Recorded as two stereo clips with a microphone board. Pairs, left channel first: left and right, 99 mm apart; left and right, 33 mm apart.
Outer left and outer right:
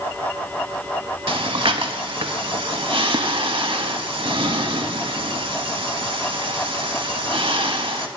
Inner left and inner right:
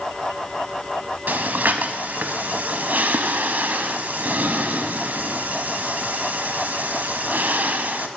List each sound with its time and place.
1.3 s breathing: 60° right (ahead or behind), 0.6 m